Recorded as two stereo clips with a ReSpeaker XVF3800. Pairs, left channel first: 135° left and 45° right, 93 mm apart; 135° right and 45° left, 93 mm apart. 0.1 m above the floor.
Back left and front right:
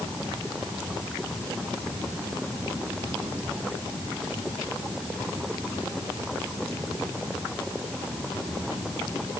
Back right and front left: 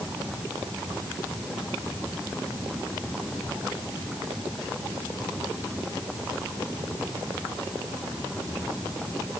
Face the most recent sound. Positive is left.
No sound to turn to.